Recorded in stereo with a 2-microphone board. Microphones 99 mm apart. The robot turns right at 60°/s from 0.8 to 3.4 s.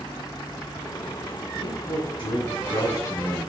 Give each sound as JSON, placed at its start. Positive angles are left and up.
{"t": 1.6, "sound": "a man speaking", "azimuth_deg": 55, "distance_m": 3.0}